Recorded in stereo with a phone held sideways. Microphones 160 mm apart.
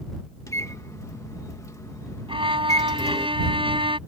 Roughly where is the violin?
Right.